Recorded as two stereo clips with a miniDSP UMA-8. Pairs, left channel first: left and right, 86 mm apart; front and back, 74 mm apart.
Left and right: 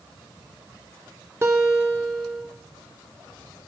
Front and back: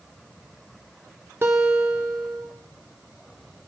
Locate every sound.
1.4 s a guitar: 135° right, 1.5 m